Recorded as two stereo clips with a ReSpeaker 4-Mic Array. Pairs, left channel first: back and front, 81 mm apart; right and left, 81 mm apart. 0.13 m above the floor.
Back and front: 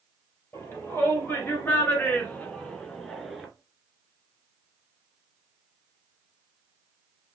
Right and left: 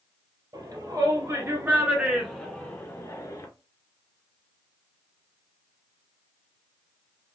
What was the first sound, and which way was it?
A shout, 120° left.